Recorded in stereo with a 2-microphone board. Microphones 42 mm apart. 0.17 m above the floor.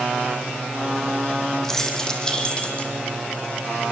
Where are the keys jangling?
10° left (ahead or behind), 4.5 m; by 2.9 s 30° left (ahead or behind), 5 m.